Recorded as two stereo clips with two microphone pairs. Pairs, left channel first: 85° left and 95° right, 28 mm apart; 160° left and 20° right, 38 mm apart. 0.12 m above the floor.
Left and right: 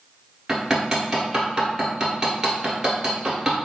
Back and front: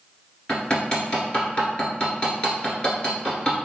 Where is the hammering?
155° right, 1.1 m.